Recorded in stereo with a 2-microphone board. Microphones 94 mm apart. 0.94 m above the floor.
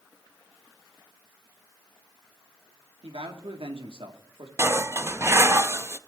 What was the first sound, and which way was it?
A man speaking, 75° right (ahead or behind).